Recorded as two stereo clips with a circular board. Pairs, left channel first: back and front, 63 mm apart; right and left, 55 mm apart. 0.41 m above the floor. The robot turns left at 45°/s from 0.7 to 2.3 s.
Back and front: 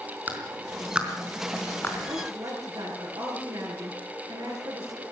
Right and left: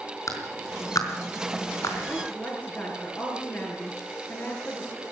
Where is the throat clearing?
No throat clearing in this recording.